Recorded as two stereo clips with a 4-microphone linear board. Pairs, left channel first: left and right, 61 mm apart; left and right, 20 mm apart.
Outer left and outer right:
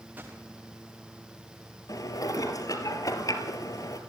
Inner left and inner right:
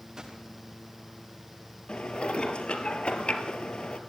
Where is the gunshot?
30° right (ahead or behind), 6 m.